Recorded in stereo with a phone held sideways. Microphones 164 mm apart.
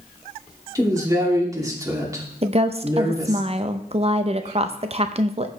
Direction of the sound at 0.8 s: 20° right (ahead or behind).